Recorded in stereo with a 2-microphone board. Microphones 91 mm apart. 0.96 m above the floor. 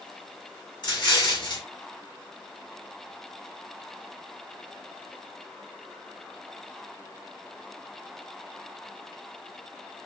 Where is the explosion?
60° left (ahead or behind), 3 m.